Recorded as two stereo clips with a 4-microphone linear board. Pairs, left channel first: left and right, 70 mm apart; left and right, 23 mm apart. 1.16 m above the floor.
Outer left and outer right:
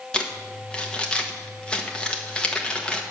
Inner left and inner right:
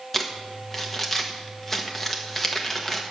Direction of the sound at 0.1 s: 15° left (ahead or behind).